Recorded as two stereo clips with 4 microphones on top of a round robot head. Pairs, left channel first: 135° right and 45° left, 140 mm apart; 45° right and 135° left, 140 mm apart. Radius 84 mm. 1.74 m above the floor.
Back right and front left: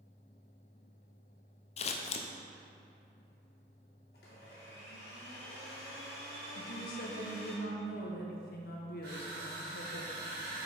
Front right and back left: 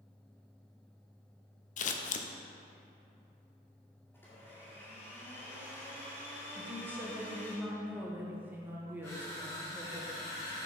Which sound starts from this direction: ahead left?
Crushing, at 9.0 s.